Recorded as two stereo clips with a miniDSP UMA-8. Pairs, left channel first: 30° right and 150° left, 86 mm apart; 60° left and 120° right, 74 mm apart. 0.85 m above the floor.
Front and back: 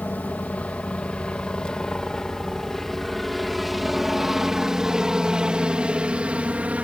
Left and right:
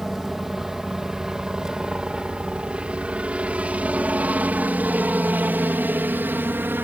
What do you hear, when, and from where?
0.0 s a helicopter: 40° right; by 6.8 s 150° right